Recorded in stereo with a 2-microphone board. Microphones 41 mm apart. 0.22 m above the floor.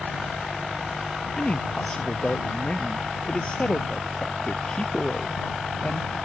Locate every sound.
1.4 s a man speaking: 30° left (ahead or behind)